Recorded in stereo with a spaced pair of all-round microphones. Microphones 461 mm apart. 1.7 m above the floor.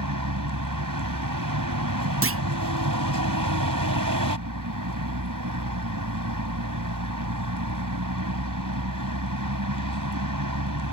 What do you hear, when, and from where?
0.0 s a vehicle: 45° right (ahead or behind)
2.2 s a clunk: 30° right (ahead or behind)